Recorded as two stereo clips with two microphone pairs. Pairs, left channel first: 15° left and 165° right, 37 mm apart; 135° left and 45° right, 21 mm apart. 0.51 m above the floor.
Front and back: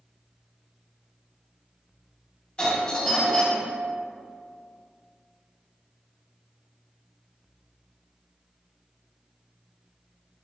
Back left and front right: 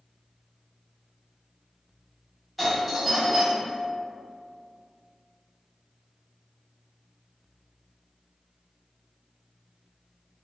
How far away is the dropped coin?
No dropped coin in this recording.